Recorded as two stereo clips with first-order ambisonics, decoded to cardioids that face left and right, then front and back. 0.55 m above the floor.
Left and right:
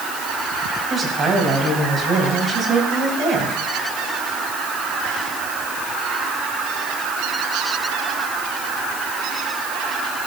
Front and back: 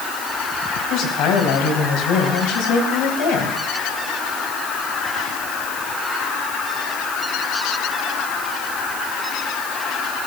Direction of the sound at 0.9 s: 25° right.